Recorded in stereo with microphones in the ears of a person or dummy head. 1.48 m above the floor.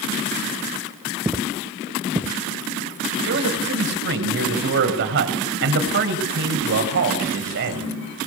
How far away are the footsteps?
About 1.5 m.